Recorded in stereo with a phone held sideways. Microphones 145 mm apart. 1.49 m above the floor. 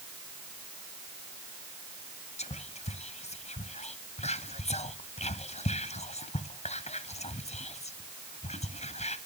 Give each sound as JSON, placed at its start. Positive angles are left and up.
{"t": 2.4, "sound": "whispering", "side_deg": 50, "distance_m": 0.5}